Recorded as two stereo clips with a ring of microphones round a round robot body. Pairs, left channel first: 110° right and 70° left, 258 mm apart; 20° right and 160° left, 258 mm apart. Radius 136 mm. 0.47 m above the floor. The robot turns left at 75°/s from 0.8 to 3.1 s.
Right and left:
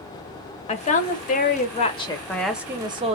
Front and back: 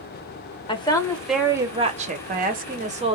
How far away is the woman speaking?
About 0.9 m.